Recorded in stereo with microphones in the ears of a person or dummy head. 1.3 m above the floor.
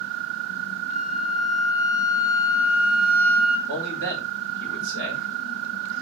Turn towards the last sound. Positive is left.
turn(degrees=-70)  # may be behind; listen again after turning